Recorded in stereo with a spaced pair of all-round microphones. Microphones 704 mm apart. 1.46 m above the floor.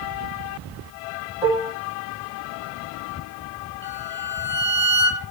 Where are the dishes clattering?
45° left (ahead or behind), 2.5 m.